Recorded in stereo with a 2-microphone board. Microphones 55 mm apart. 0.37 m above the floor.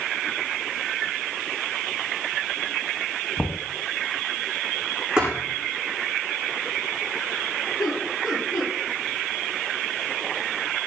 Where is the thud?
20° right (ahead or behind), 8 m.